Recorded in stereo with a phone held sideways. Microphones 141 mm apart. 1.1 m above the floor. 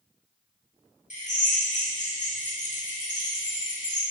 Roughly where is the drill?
Left.